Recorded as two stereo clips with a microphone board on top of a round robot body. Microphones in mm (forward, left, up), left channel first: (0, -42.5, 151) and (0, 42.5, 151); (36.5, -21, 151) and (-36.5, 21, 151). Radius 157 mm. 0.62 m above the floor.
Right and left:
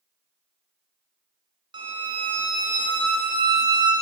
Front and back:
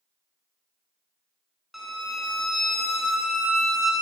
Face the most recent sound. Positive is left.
turn(degrees=60)